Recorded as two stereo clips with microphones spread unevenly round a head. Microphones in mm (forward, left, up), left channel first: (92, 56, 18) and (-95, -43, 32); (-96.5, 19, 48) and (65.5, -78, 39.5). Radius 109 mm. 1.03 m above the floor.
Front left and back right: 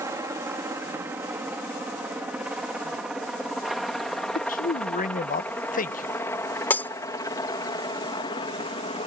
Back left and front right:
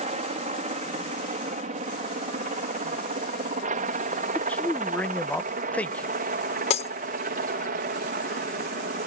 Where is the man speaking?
65° left.